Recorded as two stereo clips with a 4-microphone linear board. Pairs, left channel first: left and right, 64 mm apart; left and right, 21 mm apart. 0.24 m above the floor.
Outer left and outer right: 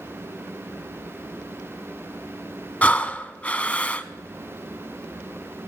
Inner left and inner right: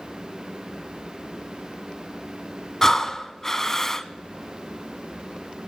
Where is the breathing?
20° left (ahead or behind), 0.6 m.